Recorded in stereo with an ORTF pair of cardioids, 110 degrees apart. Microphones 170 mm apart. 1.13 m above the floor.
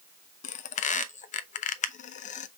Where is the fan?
I don't hear a fan.